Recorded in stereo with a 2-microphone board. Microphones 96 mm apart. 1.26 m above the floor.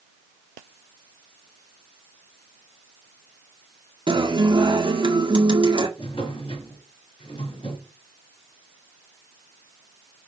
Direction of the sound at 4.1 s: 60° right (ahead or behind).